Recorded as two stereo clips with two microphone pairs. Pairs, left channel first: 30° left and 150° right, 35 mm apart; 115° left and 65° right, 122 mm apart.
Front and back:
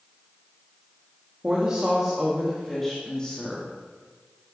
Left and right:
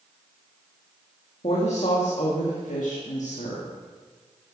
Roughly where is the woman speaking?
Behind left.